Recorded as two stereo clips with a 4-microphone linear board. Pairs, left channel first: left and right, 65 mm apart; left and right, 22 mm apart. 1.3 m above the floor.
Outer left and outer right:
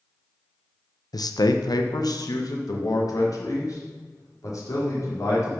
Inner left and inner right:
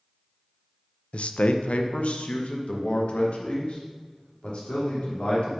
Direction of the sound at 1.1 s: 75° left (ahead or behind).